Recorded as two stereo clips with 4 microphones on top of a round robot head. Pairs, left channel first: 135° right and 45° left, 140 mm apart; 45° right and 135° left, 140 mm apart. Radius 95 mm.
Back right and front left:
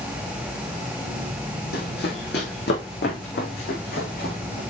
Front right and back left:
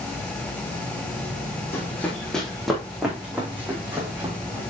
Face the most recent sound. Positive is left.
turn(degrees=-150)